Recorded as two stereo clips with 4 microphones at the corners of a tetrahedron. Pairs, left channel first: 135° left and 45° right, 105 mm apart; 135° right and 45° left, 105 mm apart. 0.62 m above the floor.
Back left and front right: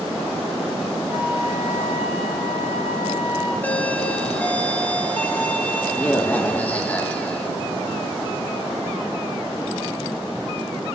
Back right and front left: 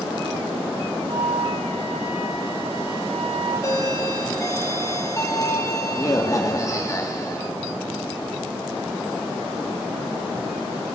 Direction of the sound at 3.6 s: 160° right.